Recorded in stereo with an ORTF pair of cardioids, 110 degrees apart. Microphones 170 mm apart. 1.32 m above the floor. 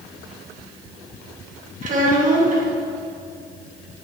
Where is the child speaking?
50° right, 1.7 m.